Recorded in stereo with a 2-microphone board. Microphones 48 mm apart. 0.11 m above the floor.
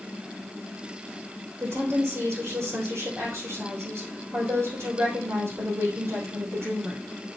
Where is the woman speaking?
65° right (ahead or behind), 4.5 m.